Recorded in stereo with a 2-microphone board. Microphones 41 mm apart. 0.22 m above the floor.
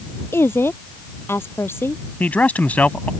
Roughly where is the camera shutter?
I don't hear a camera shutter.